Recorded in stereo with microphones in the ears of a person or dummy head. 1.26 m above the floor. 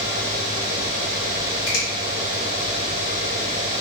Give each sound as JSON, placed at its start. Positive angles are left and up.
{"t": 1.7, "sound": "a finger snap", "side_deg": 60, "distance_m": 1.8}